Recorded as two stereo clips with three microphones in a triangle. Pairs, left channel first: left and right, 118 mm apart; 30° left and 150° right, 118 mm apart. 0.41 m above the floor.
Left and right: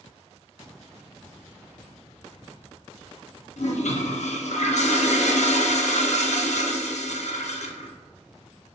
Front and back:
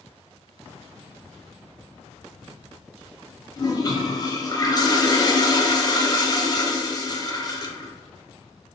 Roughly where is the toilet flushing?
Left.